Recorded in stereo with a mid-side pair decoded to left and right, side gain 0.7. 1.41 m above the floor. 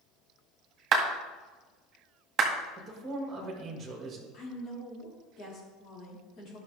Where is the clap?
35° right, 2.0 m.